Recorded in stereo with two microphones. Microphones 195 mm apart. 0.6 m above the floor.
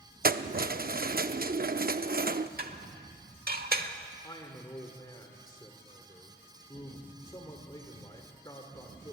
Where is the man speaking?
20° left (ahead or behind), 1.6 m.